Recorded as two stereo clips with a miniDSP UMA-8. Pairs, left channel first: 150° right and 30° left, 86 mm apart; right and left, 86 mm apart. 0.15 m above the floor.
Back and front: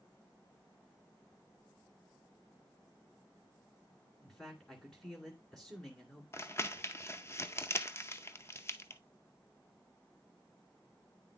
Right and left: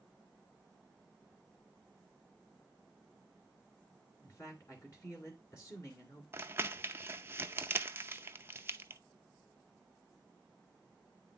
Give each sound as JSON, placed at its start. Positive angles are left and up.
{"t": 4.2, "sound": "a man speaking", "azimuth_deg": -70, "distance_m": 2.0}
{"t": 6.3, "sound": "crumpling", "azimuth_deg": 150, "distance_m": 0.6}